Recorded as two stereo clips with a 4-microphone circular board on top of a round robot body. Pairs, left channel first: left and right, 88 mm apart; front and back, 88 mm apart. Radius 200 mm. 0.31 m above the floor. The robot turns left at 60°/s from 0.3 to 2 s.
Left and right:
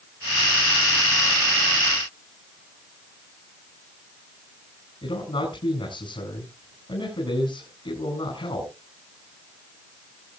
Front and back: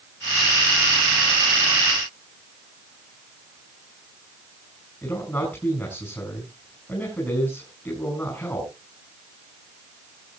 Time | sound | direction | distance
5.0 | a man speaking | 65° left | 5.5 m